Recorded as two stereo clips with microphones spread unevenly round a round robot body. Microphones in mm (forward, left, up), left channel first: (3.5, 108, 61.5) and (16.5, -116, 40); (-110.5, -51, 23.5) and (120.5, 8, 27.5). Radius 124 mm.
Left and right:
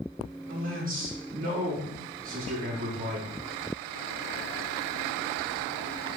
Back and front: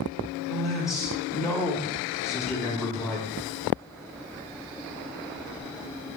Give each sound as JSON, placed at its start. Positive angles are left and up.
{"t": 0.5, "sound": "a man speaking", "azimuth_deg": -75, "distance_m": 1.2}